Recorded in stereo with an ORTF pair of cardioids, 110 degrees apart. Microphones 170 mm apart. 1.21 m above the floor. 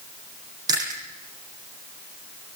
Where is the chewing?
25° right, 10 m.